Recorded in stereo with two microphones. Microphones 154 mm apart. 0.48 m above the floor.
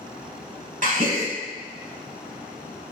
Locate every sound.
0.8 s a gasp: 60° right (ahead or behind), 0.9 m